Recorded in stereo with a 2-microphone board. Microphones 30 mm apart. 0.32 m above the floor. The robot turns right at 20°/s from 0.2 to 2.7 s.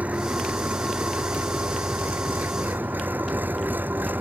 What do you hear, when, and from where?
0.0 s an engine running: 130° right; by 4.2 s 80° right